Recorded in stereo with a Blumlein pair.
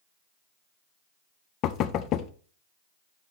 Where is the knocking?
35° left, 0.6 m.